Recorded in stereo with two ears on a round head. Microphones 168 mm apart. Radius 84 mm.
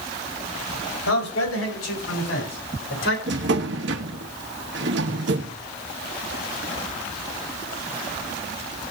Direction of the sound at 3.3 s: 65° right (ahead or behind).